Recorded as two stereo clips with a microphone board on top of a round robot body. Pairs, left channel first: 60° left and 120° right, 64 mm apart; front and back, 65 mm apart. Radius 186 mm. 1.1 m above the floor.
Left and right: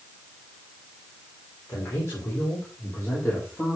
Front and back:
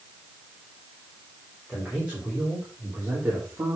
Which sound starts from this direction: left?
A man speaking, at 1.7 s.